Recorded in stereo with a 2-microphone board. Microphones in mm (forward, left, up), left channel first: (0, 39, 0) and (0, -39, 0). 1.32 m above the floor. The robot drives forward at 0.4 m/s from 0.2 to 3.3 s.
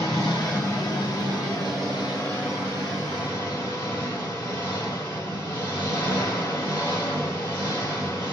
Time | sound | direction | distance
0.0 | an engine running | 50° left (ahead or behind) | 3 m